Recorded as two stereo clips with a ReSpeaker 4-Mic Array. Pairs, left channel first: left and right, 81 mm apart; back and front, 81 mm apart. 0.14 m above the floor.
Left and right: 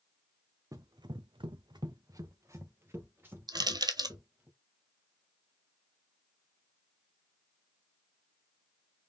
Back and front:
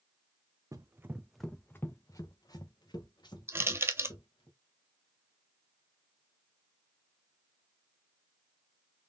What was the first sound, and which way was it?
Running footsteps, 45° right.